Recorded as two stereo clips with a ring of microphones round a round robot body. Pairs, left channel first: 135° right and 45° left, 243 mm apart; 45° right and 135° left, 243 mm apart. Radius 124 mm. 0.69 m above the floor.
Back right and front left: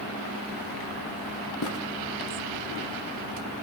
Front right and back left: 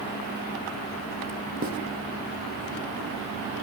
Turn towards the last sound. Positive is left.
turn(degrees=-170)